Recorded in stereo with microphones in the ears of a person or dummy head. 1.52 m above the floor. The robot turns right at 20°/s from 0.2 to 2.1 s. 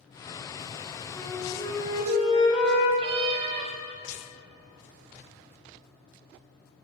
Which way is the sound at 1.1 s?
15° left (ahead or behind).